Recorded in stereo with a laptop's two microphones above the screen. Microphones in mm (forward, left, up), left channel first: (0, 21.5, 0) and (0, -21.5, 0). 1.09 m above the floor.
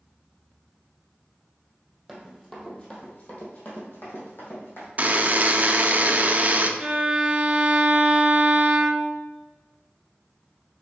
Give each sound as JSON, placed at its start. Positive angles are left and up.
{"t": 2.1, "sound": "running footsteps", "side_deg": 5, "distance_m": 2.5}
{"t": 5.0, "sound": "a buzzer", "side_deg": -35, "distance_m": 0.7}
{"t": 6.8, "sound": "a violin", "side_deg": -15, "distance_m": 1.0}